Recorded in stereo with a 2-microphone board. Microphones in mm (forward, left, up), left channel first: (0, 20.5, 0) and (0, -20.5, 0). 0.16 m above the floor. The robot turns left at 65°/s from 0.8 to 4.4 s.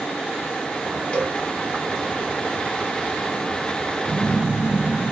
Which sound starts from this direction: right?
A phone buzzing, at 4.1 s.